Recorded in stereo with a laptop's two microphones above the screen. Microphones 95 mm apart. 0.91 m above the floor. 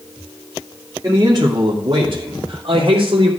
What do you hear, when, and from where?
1.0 s a man speaking: 35° right (ahead or behind), 2.5 m; by 3.3 s 70° right (ahead or behind), 3 m